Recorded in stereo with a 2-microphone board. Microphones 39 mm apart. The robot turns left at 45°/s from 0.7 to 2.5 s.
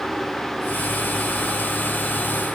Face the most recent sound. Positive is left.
No sound to turn to.